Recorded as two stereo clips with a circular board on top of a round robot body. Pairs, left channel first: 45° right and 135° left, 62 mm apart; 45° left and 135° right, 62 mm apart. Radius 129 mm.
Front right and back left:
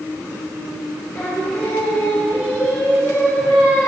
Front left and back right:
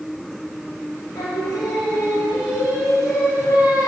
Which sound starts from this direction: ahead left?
Singing, at 1.1 s.